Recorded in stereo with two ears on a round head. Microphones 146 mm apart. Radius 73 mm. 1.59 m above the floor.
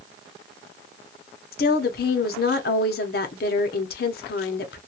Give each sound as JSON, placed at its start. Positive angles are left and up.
{"t": 1.5, "sound": "a woman speaking", "side_deg": 60, "distance_m": 0.8}